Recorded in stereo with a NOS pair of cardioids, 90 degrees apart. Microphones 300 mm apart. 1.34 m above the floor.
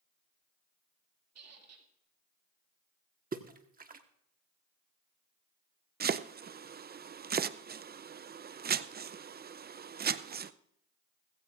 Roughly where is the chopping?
Ahead right.